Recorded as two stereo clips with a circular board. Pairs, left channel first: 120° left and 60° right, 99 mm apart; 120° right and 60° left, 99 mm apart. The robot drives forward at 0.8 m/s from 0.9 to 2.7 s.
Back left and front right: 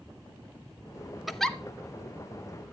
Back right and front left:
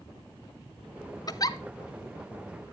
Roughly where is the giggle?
Behind right.